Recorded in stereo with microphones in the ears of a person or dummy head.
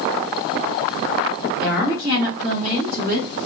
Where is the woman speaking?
5° right (ahead or behind), 2 m; by 3.3 s 55° right (ahead or behind), 2.5 m.